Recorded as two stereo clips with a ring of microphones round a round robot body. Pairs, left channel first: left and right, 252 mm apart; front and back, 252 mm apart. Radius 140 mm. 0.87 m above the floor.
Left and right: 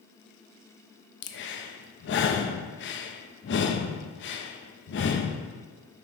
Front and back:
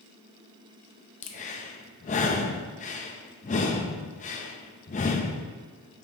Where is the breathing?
55° left, 0.6 m.